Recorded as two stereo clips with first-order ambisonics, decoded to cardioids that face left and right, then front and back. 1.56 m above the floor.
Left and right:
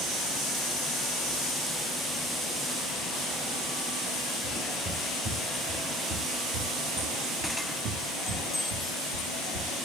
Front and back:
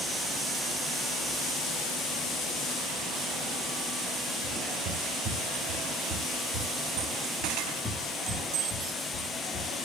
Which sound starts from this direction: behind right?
Footsteps, at 4.4 s.